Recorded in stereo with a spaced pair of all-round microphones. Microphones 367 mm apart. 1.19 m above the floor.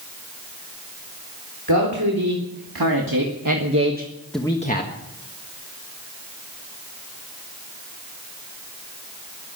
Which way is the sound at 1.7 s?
85° right.